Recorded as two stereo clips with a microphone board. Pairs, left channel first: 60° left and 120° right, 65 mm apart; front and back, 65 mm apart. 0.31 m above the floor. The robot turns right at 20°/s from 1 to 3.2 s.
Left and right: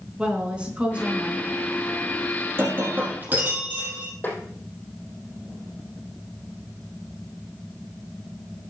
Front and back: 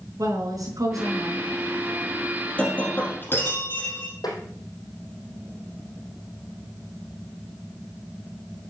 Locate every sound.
0.2 s a woman speaking: 165° left, 4 m; by 1.5 s 175° left, 4 m
2.6 s breaking glass: 70° right, 4 m; by 4.1 s 55° right, 4 m
4.2 s tapping: straight ahead, 3.5 m